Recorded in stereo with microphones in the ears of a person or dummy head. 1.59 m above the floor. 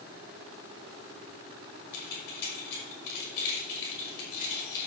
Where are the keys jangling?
60° left (ahead or behind), 5 m.